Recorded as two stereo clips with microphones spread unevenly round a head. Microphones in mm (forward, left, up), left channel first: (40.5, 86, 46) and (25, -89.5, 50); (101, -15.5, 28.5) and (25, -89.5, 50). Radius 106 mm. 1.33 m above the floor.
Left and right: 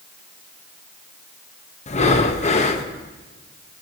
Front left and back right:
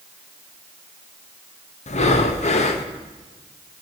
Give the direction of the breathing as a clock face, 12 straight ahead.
11 o'clock.